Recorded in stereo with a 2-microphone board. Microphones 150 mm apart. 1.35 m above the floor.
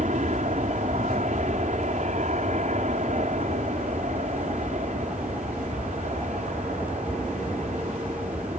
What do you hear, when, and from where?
0.0 s an aircraft: 55° right (ahead or behind)